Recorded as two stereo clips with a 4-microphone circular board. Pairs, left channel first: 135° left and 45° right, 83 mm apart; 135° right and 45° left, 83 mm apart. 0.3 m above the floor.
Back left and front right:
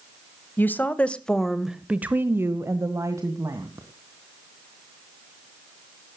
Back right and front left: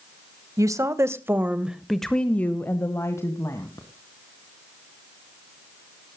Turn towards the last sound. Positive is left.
turn(degrees=-90)